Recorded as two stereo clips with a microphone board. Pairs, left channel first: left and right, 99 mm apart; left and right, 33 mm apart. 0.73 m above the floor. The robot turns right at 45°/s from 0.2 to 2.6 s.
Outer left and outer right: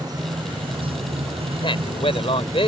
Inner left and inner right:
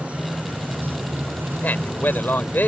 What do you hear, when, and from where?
0.0 s running water: 140° right; by 2.7 s 30° right
1.6 s a man speaking: 60° left; by 2.7 s 105° left